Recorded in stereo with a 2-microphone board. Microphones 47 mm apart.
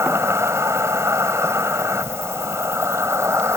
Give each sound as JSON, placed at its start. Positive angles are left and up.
{"t": 0.0, "sound": "an insect", "side_deg": -80}